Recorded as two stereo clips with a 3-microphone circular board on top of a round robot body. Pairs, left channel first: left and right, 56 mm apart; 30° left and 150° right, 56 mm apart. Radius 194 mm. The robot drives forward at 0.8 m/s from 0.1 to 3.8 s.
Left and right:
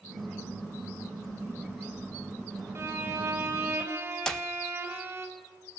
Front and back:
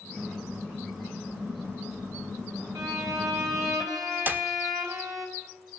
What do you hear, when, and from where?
2.8 s a violin: 135° right, 4 m; by 5.3 s 140° right, 4.5 m
4.3 s a clap: 165° left, 1.3 m